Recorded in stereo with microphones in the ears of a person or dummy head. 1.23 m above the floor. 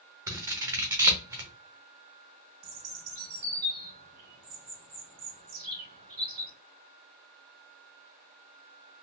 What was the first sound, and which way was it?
Scissors, 10° right (ahead or behind).